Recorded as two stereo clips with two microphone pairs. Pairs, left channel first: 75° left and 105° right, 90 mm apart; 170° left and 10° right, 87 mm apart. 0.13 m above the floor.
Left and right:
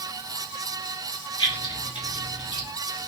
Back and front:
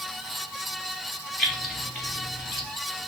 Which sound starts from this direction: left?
Keys jangling, at 1.4 s.